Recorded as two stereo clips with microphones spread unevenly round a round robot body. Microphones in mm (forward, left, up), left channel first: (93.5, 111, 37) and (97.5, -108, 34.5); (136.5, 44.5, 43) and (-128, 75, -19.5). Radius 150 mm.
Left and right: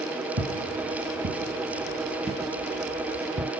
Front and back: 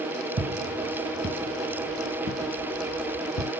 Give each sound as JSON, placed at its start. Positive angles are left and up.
{"t": 0.4, "sound": "footsteps", "azimuth_deg": -140, "distance_m": 1.5}